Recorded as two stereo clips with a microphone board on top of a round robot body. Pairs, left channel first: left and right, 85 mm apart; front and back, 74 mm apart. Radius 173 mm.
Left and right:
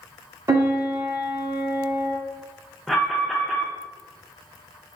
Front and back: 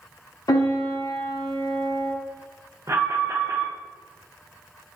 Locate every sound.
0.5 s a piano: 40° right, 0.5 m
2.9 s an alarm: 175° left, 0.8 m